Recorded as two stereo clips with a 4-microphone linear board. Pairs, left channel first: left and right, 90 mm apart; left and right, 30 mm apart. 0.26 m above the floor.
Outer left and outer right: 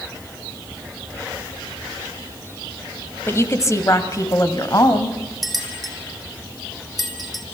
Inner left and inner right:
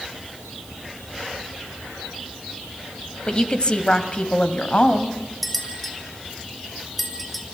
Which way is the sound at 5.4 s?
Centre (ahead or behind).